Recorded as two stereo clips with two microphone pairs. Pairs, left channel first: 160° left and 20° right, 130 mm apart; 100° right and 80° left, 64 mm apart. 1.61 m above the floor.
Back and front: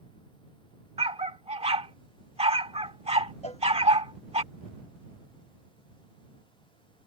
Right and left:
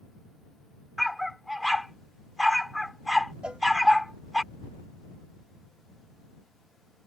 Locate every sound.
1.0 s a dog barking: 15° right
3.4 s a cowbell: 150° left